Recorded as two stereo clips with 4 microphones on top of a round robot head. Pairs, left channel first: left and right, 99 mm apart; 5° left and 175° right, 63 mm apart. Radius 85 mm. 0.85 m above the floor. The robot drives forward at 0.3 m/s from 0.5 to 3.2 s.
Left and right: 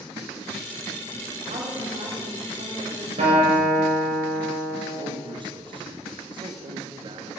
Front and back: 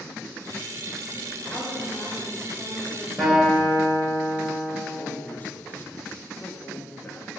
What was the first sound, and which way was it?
A woman speaking, 70° right.